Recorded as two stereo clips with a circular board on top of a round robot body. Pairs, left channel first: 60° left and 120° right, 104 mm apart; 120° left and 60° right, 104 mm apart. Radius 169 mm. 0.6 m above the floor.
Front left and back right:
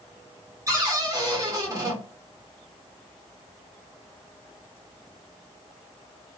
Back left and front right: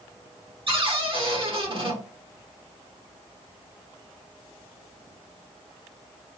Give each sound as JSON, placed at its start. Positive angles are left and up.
{"t": 0.7, "sound": "a cupboard door", "azimuth_deg": -70, "distance_m": 1.8}